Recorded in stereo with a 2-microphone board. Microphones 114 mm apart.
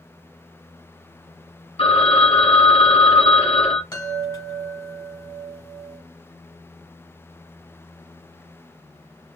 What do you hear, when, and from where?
1.8 s a phone ringing: 55° left (ahead or behind), 1.6 m
3.9 s a chime: 30° left (ahead or behind), 1.3 m